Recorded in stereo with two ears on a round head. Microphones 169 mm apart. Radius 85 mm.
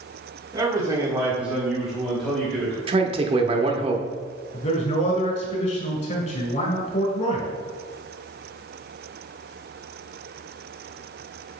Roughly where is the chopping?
No chopping in this recording.